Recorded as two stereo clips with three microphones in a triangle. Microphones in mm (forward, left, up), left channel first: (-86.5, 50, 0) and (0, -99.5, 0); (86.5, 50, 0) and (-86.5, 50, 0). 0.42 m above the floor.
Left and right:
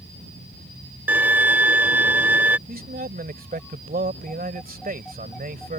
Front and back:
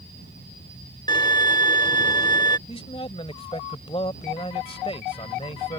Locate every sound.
1.1 s a violin: straight ahead
2.7 s a man speaking: 50° right